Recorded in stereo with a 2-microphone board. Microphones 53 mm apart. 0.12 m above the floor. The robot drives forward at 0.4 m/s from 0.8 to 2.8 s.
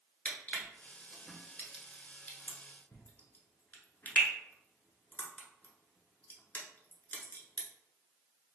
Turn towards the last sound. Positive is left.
turn(degrees=35)  # may be behind; listen again after turning